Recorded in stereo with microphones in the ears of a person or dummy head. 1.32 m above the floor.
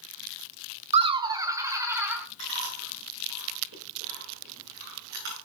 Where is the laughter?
35° right (ahead or behind), 0.5 m; by 2.3 s 15° right (ahead or behind), 1.8 m.